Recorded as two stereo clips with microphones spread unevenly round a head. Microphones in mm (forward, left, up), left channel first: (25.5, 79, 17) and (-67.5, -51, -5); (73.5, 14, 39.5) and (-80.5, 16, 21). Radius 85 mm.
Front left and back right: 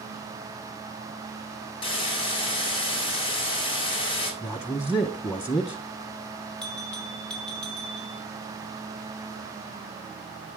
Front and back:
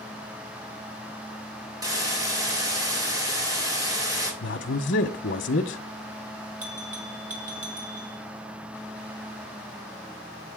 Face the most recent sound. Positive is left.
turn(degrees=140)